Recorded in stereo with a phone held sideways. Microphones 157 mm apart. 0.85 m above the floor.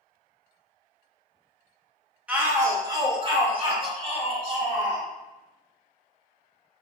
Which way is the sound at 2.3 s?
10° right (ahead or behind).